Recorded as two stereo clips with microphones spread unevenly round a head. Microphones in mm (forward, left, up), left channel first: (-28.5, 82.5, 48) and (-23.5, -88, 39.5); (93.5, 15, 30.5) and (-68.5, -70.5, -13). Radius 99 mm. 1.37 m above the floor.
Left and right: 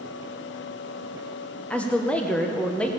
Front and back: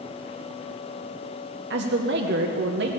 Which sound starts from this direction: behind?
A woman speaking, at 1.7 s.